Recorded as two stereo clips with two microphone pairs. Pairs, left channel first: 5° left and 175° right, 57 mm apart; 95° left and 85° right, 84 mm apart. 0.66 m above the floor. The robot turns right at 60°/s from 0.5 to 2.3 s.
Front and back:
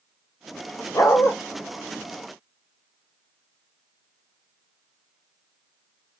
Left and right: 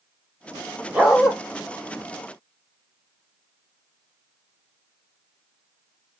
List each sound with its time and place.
0.9 s a dog barking: 10° right, 0.8 m; by 1.3 s 10° left, 0.8 m